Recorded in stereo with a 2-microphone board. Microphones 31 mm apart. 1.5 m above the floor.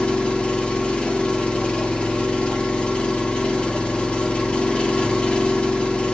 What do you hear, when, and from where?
0.0 s an engine running: 35° left (ahead or behind), 1.0 m